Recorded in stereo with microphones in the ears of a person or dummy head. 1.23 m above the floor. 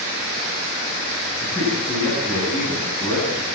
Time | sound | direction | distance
1.4 | a man speaking | 15° left (ahead or behind) | 9 m